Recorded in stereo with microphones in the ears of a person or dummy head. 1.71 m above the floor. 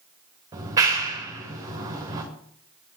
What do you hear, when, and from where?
0.5 s a clap: 20° right (ahead or behind), 2.5 m